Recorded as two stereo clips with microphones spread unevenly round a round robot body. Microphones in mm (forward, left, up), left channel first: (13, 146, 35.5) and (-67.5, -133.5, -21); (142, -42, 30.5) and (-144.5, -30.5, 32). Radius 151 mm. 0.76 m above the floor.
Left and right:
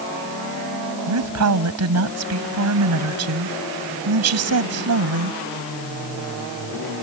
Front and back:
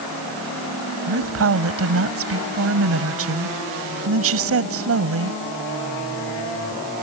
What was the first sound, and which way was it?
A woman speaking, 140° right.